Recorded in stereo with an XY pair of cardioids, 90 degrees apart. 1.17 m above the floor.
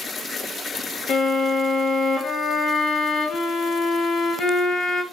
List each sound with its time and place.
1.1 s a violin: 55° left, 2 m